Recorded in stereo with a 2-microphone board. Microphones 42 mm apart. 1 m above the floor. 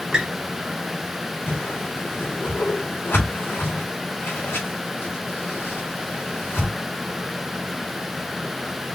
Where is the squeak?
15° right (ahead or behind), 1.9 m.